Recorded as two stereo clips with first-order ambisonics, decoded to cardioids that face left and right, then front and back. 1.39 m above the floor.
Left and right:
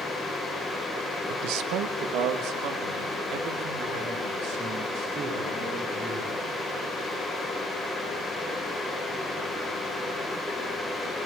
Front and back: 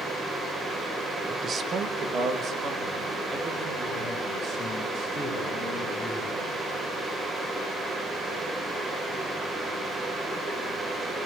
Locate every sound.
1.3 s a man speaking: 110° right, 0.8 m; by 6.5 s 125° right, 8.5 m